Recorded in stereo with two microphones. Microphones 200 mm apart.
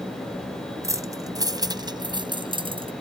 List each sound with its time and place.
0.8 s keys jangling: 15° right (ahead or behind); by 2.9 s 25° right (ahead or behind)